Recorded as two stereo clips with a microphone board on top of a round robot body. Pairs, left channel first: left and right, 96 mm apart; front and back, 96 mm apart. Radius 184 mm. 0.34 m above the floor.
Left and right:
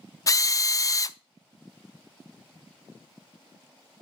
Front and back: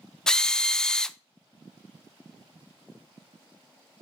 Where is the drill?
80° left, 0.6 m.